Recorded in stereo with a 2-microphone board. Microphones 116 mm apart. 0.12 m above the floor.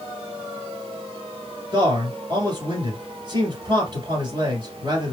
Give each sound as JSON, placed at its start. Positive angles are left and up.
{"t": 1.7, "sound": "a man speaking", "side_deg": -40, "distance_m": 2.0}